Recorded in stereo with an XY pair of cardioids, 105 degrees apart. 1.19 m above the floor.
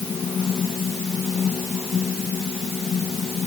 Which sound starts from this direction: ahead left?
A fan, at 0.0 s.